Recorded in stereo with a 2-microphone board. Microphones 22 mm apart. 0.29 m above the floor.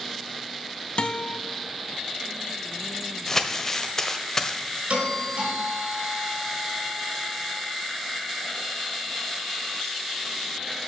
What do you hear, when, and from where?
1.0 s a guitar: 55° left (ahead or behind), 1.0 m
3.3 s crumpling: 20° left (ahead or behind), 1.1 m
4.9 s a doorbell: 70° right (ahead or behind), 4 m